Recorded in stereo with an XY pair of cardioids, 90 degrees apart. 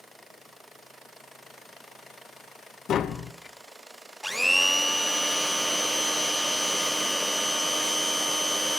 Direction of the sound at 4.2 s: 5° right.